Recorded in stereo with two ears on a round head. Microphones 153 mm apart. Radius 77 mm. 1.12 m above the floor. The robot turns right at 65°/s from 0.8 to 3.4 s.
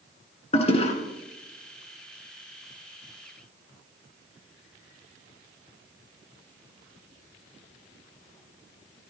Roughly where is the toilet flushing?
Left.